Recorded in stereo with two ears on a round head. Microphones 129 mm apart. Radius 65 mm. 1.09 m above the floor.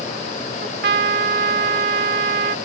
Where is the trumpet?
75° right (ahead or behind).